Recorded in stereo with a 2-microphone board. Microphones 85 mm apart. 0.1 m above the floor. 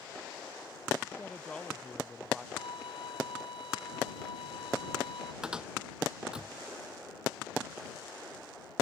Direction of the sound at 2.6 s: 70° left (ahead or behind).